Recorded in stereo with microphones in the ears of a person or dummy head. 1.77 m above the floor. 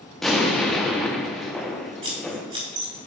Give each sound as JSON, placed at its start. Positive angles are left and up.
{"t": 0.2, "sound": "an explosion", "side_deg": 0, "distance_m": 1.0}
{"t": 2.0, "sound": "scissors", "side_deg": -30, "distance_m": 2.0}